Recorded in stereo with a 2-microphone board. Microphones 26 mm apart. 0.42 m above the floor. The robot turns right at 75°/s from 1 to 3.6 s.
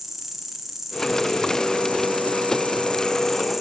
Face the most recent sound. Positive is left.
turn(degrees=-175)